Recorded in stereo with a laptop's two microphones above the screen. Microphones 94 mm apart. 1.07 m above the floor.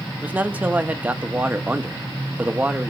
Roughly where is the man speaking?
Centre.